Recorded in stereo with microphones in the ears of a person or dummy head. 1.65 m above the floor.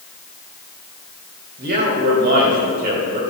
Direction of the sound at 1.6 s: 50° right (ahead or behind).